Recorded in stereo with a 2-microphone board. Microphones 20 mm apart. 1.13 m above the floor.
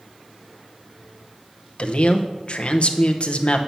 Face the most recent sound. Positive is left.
turn(degrees=50)  # may be behind; listen again after turning